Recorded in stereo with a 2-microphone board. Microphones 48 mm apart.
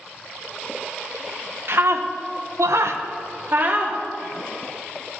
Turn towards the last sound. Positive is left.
turn(degrees=-35)  # may be behind; listen again after turning